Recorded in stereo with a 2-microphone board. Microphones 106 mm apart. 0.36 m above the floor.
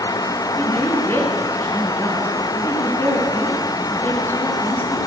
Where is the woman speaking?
20° left (ahead or behind), 4.5 m.